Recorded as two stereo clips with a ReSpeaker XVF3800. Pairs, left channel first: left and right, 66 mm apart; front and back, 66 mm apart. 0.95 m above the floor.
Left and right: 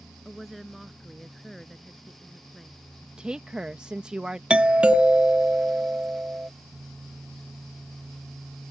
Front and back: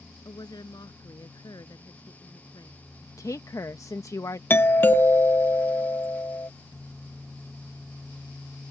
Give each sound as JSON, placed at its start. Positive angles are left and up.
{"t": 0.2, "sound": "a woman speaking", "azimuth_deg": 5}
{"t": 3.2, "sound": "a woman speaking", "azimuth_deg": -15}
{"t": 4.5, "sound": "a doorbell", "azimuth_deg": -25}